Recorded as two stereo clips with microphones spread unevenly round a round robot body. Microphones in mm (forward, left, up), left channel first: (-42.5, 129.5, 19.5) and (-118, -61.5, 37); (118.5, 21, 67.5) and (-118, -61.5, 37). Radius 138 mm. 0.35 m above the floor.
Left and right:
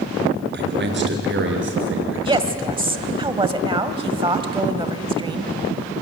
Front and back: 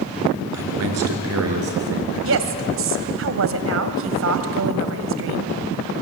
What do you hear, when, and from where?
0.5 s a man speaking: 145° right, 4.5 m; by 3.2 s 125° right, 6.5 m
2.2 s a woman speaking: 175° right, 2 m